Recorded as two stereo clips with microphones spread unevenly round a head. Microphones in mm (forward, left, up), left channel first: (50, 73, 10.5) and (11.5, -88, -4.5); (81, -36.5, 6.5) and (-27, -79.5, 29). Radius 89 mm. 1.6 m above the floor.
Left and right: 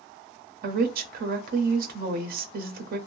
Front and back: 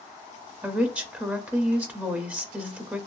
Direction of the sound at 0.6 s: 95° right.